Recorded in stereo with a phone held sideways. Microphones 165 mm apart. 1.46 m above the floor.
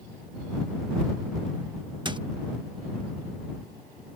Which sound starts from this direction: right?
A squeak, at 2.0 s.